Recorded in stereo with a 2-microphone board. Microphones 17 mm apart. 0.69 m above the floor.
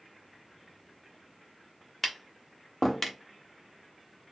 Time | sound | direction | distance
2.0 | tapping | 5° left (ahead or behind) | 0.7 m